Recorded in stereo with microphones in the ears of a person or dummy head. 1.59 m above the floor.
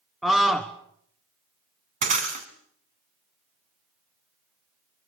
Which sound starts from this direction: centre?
A scream, at 0.2 s.